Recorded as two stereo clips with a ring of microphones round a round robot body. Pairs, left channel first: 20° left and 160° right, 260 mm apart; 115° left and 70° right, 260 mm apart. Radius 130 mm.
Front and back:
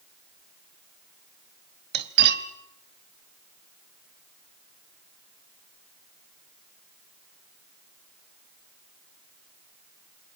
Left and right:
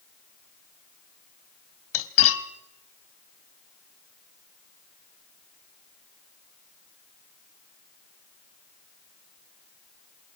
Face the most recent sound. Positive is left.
turn(degrees=150)